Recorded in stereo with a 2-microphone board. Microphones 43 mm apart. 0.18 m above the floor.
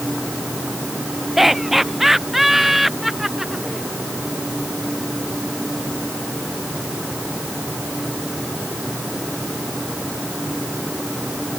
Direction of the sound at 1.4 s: 5° right (ahead or behind).